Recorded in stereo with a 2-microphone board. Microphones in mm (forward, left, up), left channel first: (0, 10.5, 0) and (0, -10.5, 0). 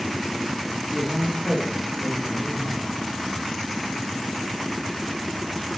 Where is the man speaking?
65° right (ahead or behind), 9.5 m; by 2.9 s 70° right (ahead or behind), 10.5 m.